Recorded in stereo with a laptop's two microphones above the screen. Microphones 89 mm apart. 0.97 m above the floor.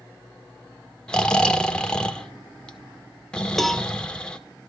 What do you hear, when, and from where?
1.1 s snoring: 10° left (ahead or behind), 1.6 m
3.6 s a cowbell: centre (ahead or behind), 1.0 m